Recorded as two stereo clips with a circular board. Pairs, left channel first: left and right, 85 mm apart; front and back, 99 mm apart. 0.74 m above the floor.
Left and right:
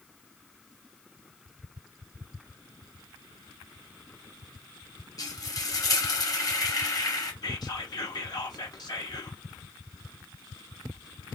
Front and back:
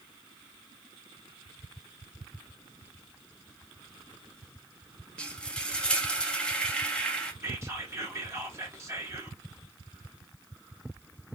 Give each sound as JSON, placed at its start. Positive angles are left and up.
{"t": 5.2, "sound": "frying", "azimuth_deg": 75, "distance_m": 0.9}
{"t": 7.4, "sound": "whispering", "azimuth_deg": 120, "distance_m": 1.2}